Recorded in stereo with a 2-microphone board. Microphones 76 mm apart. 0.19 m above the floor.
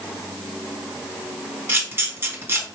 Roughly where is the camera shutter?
Right.